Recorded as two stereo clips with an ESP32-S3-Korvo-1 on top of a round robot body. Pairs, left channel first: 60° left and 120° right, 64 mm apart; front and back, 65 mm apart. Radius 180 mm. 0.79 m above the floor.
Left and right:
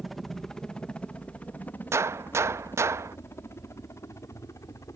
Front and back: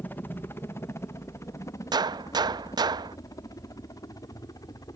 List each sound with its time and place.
0.0 s a helicopter: 30° right; by 5.0 s 25° left
1.9 s a gunshot: 170° right